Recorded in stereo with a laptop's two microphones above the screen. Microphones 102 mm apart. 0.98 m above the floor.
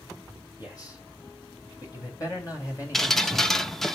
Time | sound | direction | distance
0.6 | a man speaking | 40° left (ahead or behind) | 6.5 m
2.9 | dripping | 5° left (ahead or behind) | 1.1 m